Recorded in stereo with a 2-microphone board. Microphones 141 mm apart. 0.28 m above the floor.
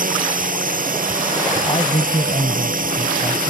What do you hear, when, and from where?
0.0 s a drone: 75° right (ahead or behind)
1.7 s a man speaking: 40° left (ahead or behind)